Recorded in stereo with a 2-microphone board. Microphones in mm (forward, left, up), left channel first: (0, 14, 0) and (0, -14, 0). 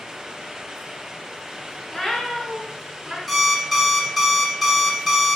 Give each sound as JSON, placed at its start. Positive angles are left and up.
{"t": 1.9, "sound": "a cat meowing", "side_deg": 25, "distance_m": 0.6}
{"t": 3.3, "sound": "an alarm clock", "side_deg": 5, "distance_m": 0.5}